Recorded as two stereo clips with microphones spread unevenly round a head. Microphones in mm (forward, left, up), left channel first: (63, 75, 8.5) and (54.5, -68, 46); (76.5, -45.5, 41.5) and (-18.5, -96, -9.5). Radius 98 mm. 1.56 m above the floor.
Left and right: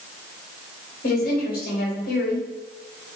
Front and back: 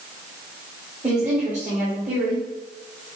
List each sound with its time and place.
1.0 s a woman speaking: 125° left, 1.7 m